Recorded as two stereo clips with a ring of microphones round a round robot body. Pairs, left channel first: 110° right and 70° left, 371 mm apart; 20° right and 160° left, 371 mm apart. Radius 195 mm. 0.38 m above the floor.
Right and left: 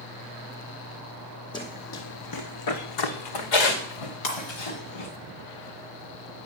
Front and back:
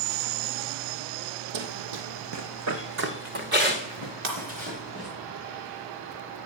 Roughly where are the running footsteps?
Behind.